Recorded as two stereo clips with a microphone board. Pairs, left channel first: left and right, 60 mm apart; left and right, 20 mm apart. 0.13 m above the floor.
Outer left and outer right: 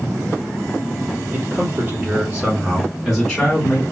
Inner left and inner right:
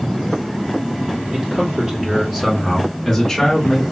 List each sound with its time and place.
1.3 s a man speaking: 45° right (ahead or behind), 2.5 m; by 3.8 s 25° left (ahead or behind), 1.6 m